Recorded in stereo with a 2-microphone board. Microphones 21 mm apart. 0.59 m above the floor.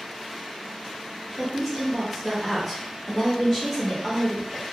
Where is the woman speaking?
10° left (ahead or behind), 0.6 m.